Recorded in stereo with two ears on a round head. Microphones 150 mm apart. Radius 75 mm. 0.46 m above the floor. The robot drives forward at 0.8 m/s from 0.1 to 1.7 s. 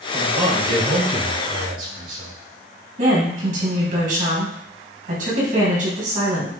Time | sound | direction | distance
0.1 | a man speaking | 50° right (ahead or behind) | 3 m
3.0 | a woman speaking | 55° right (ahead or behind) | 3.5 m